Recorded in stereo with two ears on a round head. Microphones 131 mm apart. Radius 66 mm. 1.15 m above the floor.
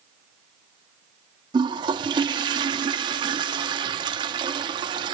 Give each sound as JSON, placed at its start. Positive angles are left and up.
{"t": 1.5, "sound": "a toilet flushing", "side_deg": -30, "distance_m": 0.7}